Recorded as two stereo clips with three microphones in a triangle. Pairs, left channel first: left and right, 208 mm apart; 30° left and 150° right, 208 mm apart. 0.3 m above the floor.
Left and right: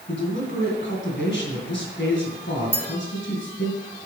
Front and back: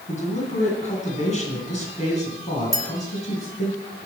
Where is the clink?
10° right, 1.3 m.